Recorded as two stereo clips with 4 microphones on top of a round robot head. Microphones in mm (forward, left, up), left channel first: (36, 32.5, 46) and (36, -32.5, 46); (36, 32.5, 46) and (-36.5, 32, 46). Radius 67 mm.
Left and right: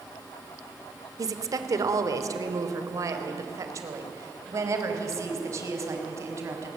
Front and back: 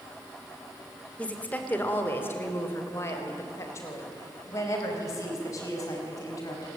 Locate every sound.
1.2 s a woman speaking: 70° right, 2 m; by 6.7 s 50° right, 5.5 m